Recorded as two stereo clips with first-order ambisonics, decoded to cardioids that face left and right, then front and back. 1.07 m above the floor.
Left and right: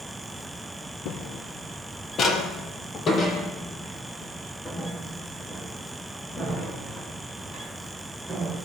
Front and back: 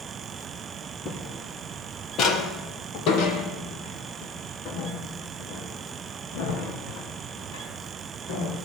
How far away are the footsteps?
About 1.5 m.